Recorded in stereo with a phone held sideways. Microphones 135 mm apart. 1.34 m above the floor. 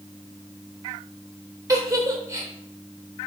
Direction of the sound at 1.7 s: 25° right (ahead or behind).